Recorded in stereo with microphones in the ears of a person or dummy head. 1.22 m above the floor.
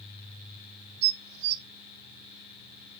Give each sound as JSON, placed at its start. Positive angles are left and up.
{"t": 1.0, "sound": "dishes clattering", "side_deg": -55, "distance_m": 0.6}